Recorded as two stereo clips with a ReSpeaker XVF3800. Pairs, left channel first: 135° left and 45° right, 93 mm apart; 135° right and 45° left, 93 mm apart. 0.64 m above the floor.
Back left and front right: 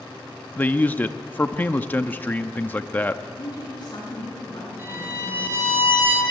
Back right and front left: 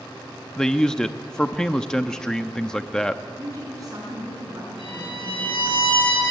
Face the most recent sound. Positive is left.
turn(degrees=-110)